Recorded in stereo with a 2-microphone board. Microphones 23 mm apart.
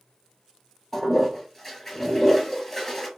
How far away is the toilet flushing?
About 1.3 m.